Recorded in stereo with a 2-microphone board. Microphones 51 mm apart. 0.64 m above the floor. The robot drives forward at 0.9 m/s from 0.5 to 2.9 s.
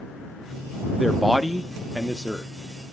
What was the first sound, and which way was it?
A man speaking, centre (ahead or behind).